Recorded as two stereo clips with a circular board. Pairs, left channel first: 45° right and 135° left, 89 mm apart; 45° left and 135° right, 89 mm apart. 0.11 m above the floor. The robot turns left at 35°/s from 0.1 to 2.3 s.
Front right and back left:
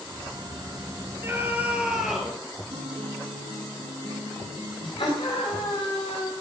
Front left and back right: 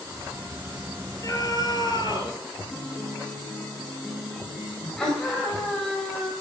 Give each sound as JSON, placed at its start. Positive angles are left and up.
{"t": 1.2, "sound": "a scream", "azimuth_deg": 80, "distance_m": 2.5}
{"t": 2.7, "sound": "a guitar", "azimuth_deg": 135, "distance_m": 6.5}
{"t": 5.0, "sound": "a scream", "azimuth_deg": -35, "distance_m": 8.5}